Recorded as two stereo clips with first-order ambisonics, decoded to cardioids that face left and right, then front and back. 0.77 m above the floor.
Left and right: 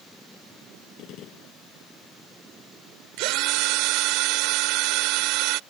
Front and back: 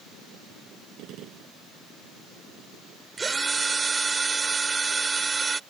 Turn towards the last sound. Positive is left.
turn(degrees=-105)